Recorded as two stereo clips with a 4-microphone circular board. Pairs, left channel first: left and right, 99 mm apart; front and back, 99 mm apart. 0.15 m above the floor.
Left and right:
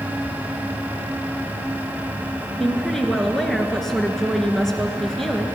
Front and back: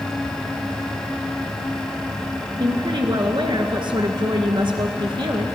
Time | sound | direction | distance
2.6 | a woman speaking | 175° left | 1.7 m